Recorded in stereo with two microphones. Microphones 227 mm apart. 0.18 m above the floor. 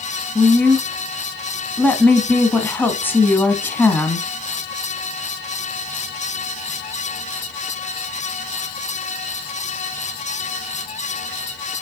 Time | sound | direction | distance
0.3 | a woman speaking | 10° left (ahead or behind) | 1.1 m